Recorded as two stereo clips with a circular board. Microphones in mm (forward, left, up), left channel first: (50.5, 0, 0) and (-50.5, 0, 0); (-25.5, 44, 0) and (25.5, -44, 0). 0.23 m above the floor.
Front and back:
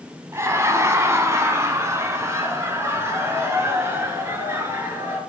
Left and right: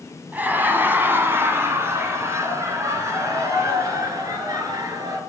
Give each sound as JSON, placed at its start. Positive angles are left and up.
{"t": 0.3, "sound": "laughter", "azimuth_deg": -130, "distance_m": 1.8}